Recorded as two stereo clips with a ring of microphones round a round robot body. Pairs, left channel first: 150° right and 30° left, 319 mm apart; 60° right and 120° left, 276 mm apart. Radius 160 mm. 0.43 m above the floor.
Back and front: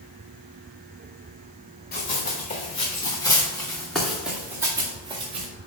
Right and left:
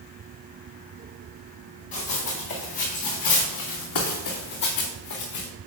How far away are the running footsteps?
About 3 m.